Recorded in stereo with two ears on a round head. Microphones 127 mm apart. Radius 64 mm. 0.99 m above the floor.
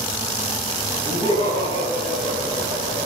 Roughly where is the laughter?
Right.